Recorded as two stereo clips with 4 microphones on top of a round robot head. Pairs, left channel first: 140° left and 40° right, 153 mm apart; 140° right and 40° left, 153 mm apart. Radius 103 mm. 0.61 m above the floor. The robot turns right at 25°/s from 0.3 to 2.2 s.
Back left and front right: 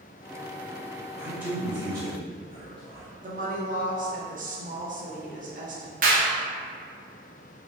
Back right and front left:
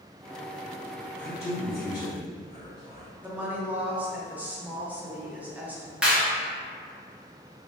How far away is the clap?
About 1.1 m.